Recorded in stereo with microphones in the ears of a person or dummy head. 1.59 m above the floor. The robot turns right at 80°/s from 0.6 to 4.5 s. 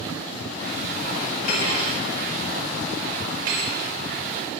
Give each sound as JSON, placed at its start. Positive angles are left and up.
{"t": 1.4, "sound": "cutlery clinking", "side_deg": 65, "distance_m": 3.5}